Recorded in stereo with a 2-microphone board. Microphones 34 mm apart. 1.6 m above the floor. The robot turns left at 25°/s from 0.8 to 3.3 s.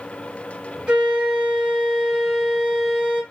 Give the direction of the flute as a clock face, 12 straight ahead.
4 o'clock.